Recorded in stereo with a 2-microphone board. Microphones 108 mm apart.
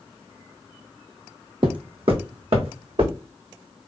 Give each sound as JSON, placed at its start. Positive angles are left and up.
{"t": 1.6, "sound": "footsteps", "side_deg": -50, "distance_m": 0.6}